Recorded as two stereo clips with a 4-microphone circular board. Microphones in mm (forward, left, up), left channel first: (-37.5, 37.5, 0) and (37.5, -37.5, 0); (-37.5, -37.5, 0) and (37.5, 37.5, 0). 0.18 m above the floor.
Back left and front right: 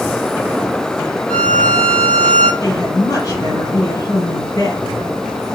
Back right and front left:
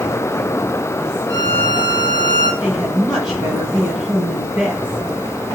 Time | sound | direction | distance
1.3 | a violin | 170° right | 1.0 m
2.6 | a woman speaking | 120° left | 1.8 m